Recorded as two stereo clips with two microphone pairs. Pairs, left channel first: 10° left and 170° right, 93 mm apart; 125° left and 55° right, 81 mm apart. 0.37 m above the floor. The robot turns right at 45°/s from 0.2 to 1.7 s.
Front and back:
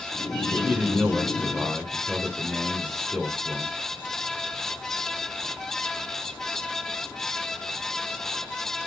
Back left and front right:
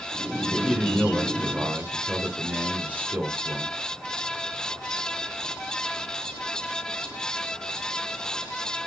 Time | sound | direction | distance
0.5 | a man speaking | 125° right | 1.2 m